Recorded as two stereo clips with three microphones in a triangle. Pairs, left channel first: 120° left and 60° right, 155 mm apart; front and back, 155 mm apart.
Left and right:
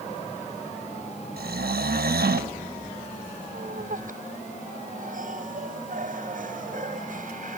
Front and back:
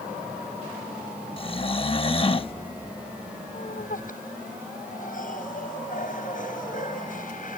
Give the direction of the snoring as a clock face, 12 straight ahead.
2 o'clock.